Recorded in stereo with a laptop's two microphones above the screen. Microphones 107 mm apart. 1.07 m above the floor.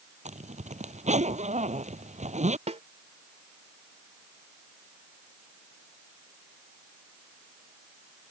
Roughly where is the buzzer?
No buzzer in this recording.